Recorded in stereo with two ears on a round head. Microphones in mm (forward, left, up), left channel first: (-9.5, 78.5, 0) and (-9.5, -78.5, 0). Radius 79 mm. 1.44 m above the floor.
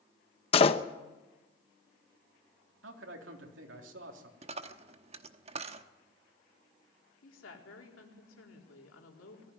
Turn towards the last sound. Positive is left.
turn(degrees=85)